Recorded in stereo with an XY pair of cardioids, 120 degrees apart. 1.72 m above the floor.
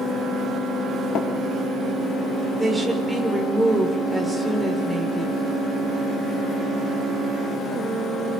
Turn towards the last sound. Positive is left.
turn(degrees=-5)